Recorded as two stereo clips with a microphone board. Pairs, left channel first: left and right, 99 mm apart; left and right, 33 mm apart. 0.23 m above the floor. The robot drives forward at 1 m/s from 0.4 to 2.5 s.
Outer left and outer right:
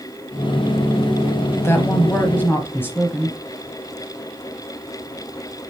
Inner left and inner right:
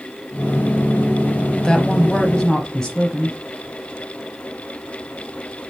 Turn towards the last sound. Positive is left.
turn(degrees=20)  # may be behind; listen again after turning